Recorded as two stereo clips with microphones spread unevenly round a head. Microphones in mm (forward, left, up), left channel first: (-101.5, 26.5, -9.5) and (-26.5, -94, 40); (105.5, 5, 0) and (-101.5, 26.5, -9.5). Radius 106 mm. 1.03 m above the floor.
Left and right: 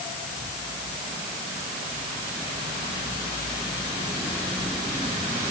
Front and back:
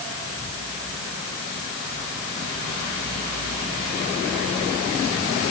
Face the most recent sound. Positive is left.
No sound to turn to.